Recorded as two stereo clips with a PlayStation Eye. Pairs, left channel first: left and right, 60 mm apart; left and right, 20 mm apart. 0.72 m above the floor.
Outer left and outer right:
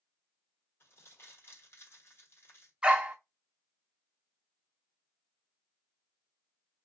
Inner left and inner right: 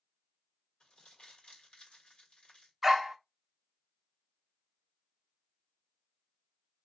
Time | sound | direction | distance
0.8 | crumpling | 45° left (ahead or behind) | 1.3 m
2.8 | a dog barking | 15° right (ahead or behind) | 0.5 m